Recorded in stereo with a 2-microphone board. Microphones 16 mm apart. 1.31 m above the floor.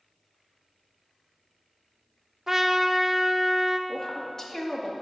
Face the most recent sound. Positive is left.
turn(degrees=25)  # may be behind; listen again after turning